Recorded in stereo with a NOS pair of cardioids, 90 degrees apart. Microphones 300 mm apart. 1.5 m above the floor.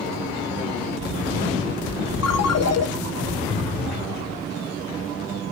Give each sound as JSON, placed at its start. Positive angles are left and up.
{"t": 2.2, "sound": "a ringtone", "azimuth_deg": 60, "distance_m": 1.7}